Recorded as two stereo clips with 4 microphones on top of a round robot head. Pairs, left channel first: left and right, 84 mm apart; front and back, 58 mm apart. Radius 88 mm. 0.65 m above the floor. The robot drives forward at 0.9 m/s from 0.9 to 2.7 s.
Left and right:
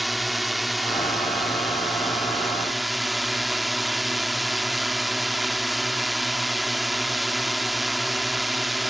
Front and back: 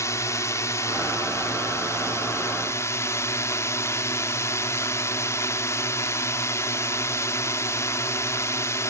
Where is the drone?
Straight ahead.